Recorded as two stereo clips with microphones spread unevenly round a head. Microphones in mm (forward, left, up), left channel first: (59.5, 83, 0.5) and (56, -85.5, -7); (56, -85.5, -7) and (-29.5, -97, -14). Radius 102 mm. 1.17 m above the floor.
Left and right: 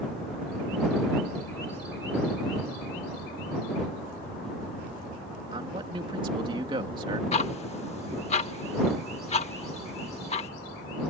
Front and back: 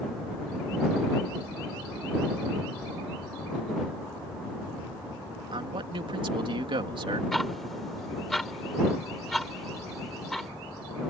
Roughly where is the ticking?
Left.